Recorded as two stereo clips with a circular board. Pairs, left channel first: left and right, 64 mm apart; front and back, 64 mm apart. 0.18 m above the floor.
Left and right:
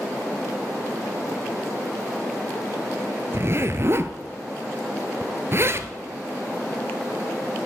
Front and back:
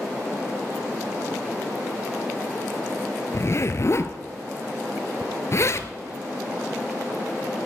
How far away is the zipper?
About 0.7 m.